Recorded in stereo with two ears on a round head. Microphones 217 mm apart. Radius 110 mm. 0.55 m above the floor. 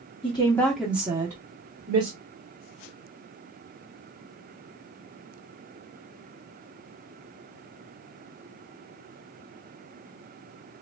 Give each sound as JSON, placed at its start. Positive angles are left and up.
{"t": 0.2, "sound": "a woman speaking", "side_deg": 25, "distance_m": 0.8}